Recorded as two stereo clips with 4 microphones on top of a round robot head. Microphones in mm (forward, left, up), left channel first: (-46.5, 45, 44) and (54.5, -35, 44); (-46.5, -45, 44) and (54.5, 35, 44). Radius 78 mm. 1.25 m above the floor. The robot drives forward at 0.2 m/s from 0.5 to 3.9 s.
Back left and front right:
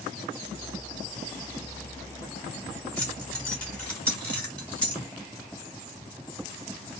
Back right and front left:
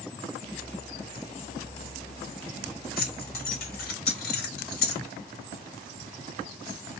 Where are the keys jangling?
135° right, 2 m; by 5.0 s 140° right, 2.5 m.